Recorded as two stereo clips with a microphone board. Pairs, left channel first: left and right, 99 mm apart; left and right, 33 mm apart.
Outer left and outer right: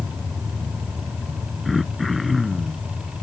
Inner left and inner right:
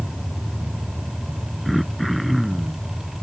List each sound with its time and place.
1.6 s throat clearing: centre (ahead or behind)